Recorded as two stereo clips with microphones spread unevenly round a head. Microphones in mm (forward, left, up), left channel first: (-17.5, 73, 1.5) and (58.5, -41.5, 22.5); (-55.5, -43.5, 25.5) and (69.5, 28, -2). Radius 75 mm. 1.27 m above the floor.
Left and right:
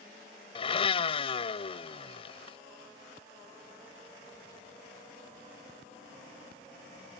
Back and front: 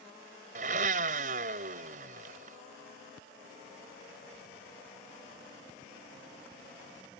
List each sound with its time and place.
0.6 s a blender: 75° left